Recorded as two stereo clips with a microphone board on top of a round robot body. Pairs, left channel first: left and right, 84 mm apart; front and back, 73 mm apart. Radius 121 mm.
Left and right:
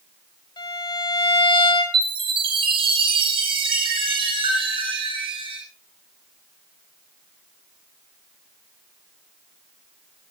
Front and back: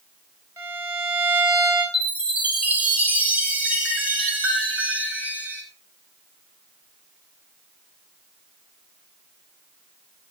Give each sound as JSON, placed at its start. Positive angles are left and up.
{"t": 0.6, "sound": "a violin", "azimuth_deg": 120, "distance_m": 5.5}
{"t": 1.9, "sound": "a chime", "azimuth_deg": -110, "distance_m": 6.0}